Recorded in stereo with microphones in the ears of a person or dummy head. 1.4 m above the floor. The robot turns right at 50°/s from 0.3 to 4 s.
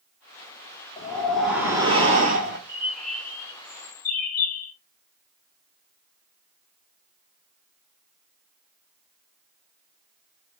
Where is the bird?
10° right, 1.2 m; by 4.7 s 55° left, 1.2 m.